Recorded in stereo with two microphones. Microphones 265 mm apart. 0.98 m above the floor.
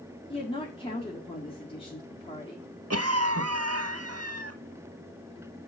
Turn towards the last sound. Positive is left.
turn(degrees=-65)  # may be behind; listen again after turning